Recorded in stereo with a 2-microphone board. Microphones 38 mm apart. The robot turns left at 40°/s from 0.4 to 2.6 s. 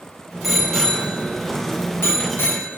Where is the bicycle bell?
Centre (ahead or behind), 5.5 m; by 2.8 s 80° left, 5.5 m.